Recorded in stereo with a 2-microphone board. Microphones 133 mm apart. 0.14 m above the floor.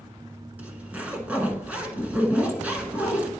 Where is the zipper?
10° right (ahead or behind), 1.1 m.